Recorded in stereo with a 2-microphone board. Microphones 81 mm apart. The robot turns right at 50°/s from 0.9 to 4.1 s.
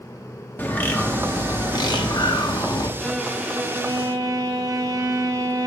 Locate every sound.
0.6 s a bird: 25° left, 0.8 m; by 2.9 s 125° left, 0.8 m
3.0 s a violin: 175° left, 0.9 m; by 5.7 s 130° right, 0.9 m